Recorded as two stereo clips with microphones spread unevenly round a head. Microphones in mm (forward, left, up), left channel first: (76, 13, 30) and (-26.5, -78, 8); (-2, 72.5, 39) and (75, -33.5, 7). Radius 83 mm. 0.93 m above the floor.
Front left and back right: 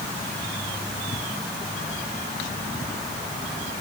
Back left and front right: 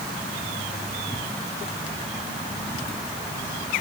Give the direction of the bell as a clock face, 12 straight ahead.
I don't hear a bell.